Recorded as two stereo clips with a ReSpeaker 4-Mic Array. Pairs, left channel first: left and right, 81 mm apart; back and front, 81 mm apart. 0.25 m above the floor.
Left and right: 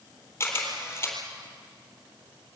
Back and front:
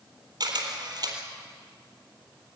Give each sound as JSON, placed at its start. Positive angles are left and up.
{"t": 0.4, "sound": "a camera shutter", "azimuth_deg": 30, "distance_m": 4.0}